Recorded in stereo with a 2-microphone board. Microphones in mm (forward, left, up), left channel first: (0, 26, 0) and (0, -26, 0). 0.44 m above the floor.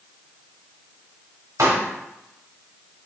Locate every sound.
1.6 s a pop: 80° right, 0.8 m